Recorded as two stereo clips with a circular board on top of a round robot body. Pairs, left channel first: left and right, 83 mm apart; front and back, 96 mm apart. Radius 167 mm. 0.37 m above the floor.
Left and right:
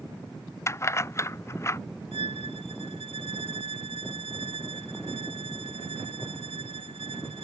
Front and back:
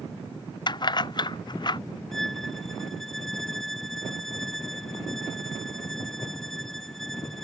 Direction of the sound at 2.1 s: 85° right.